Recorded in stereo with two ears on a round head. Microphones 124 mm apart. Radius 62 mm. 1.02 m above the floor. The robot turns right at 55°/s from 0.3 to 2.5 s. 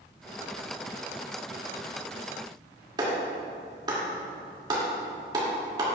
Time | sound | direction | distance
3.0 | a clap | 30° right (ahead or behind) | 2 m